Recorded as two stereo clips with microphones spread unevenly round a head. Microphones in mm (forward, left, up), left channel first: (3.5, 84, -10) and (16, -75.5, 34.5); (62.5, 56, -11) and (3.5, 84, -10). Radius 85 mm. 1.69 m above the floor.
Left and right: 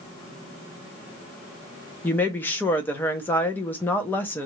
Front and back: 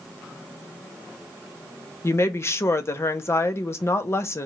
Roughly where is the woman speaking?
Ahead.